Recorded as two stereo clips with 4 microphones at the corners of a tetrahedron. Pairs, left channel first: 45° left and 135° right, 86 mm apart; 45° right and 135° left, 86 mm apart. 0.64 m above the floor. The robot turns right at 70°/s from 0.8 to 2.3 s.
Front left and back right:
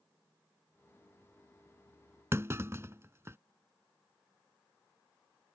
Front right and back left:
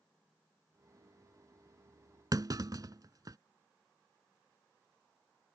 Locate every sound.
2.3 s a clunk: 170° left